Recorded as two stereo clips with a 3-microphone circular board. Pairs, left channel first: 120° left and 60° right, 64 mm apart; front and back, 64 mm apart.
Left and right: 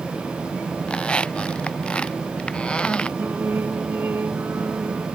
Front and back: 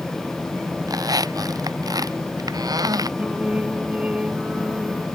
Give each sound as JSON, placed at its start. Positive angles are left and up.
{"t": 0.9, "sound": "a squeak", "azimuth_deg": -165}
{"t": 3.2, "sound": "singing", "azimuth_deg": -110}